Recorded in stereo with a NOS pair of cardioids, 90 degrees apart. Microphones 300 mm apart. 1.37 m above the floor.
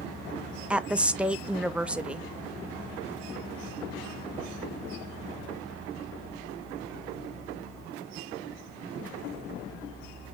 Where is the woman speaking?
5° right, 0.6 m.